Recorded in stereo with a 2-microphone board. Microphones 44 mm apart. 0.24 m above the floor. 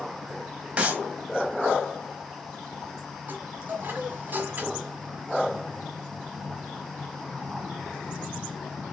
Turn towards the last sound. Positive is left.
turn(degrees=-40)  # may be behind; listen again after turning